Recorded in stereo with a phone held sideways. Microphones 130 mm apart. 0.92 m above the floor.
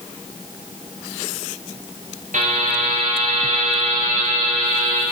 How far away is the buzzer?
About 5 m.